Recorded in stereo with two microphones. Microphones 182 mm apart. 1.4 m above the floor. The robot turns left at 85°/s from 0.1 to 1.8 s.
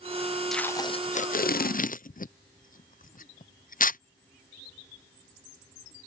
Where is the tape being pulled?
Centre (ahead or behind); by 4.0 s 50° left (ahead or behind).